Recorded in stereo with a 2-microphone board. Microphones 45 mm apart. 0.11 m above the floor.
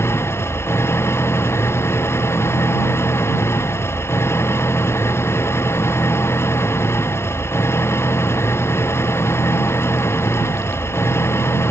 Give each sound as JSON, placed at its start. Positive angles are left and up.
{"t": 0.0, "sound": "an engine running", "side_deg": 70}